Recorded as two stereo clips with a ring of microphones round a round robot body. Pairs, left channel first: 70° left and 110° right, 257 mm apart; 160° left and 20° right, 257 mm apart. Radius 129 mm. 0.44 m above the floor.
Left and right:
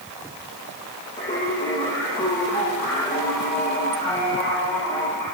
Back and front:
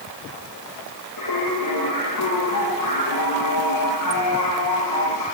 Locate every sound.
1.2 s singing: 150° left, 9.5 m